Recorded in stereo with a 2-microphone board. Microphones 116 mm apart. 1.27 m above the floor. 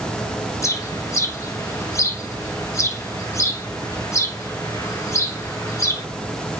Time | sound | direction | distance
0.6 | a bird | 25° left (ahead or behind) | 0.7 m